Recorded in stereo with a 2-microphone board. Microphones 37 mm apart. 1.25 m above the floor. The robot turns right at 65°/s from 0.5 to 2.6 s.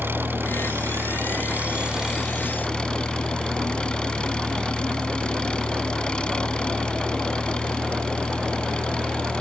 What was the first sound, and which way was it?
An engine running, 115° right.